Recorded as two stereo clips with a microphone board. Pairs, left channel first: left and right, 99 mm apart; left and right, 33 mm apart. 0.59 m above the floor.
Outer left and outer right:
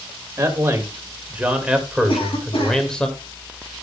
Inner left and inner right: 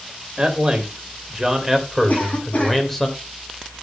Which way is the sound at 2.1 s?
55° left (ahead or behind).